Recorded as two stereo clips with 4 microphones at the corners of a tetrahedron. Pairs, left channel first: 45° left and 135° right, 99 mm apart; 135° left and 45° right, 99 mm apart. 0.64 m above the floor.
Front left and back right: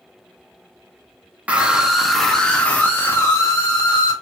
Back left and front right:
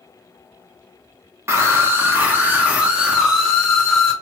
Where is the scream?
70° right, 1.3 m; by 4.1 s 45° left, 1.5 m.